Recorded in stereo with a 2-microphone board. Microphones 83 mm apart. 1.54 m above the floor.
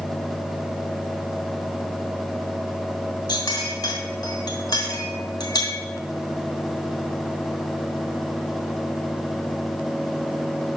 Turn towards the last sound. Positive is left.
turn(degrees=55)  # may be behind; listen again after turning